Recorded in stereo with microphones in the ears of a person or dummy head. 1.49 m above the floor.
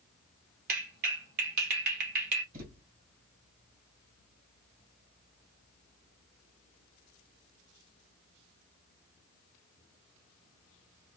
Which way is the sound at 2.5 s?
50° right (ahead or behind).